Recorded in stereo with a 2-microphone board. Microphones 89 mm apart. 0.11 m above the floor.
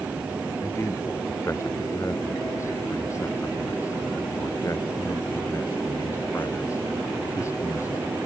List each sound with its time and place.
0.6 s a man speaking: 35° left (ahead or behind)